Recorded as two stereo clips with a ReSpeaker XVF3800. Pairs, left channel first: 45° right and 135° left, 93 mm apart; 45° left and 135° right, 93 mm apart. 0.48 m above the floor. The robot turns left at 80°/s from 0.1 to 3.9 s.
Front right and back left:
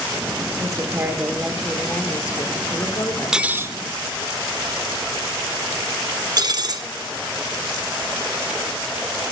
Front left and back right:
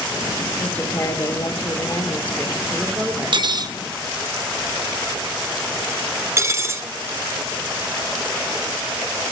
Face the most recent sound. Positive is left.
turn(degrees=170)